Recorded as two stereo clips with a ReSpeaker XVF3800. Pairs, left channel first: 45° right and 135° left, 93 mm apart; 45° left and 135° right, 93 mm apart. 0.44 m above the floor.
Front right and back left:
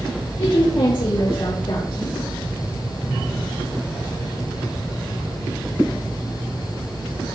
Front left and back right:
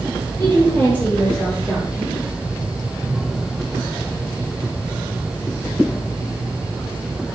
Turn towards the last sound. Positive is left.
turn(degrees=-40)